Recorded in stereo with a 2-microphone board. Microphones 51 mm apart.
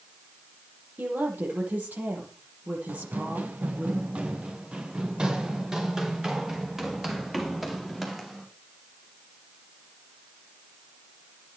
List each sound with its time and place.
1.0 s a woman speaking: 35° right (ahead or behind), 8.5 m
2.9 s running footsteps: 40° right (ahead or behind), 2 m; by 8.4 s centre (ahead or behind), 4.5 m